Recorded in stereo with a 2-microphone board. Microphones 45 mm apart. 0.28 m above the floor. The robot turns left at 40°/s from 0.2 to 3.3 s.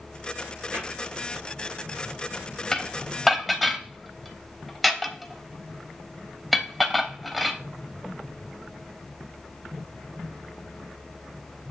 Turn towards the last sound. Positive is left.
turn(degrees=5)  # may be behind; listen again after turning